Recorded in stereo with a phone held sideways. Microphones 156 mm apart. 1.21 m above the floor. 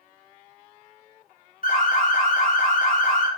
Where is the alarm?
60° left (ahead or behind), 0.9 m.